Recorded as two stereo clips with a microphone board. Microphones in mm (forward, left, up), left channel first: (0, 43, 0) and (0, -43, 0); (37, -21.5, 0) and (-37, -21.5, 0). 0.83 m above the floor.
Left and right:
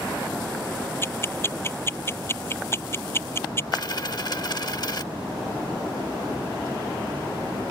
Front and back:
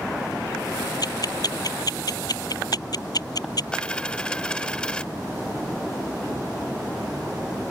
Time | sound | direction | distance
1.0 | ticking | 30° left | ?
3.7 | a dropped coin | 75° left | ?